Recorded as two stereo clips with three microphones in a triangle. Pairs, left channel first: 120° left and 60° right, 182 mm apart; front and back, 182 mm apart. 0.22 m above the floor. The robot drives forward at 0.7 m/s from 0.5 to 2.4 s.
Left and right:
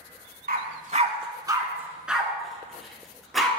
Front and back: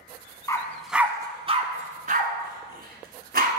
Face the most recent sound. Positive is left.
turn(degrees=-150)